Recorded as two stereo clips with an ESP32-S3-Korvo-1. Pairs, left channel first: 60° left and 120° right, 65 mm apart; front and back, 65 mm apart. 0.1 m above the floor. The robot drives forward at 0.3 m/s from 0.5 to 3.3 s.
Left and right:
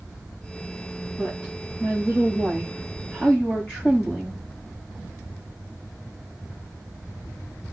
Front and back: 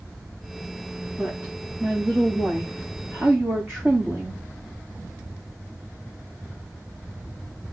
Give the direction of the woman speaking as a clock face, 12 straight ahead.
8 o'clock.